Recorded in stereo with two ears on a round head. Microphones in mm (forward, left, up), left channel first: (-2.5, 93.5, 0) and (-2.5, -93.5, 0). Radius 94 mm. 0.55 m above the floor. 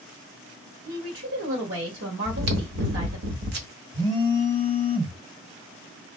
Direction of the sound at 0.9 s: 70° right (ahead or behind).